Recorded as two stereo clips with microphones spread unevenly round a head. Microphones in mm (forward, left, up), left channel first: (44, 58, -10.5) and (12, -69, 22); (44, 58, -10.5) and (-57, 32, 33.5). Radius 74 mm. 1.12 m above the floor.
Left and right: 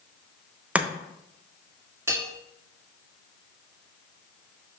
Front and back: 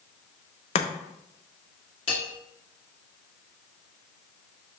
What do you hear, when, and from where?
0.8 s chopping: 20° right, 0.8 m
2.1 s a bell: 30° right, 1.7 m